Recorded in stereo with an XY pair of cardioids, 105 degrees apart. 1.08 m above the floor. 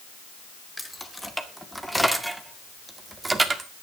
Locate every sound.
0.8 s keys jangling: 10° left, 2.5 m; by 3.7 s 30° right, 1.9 m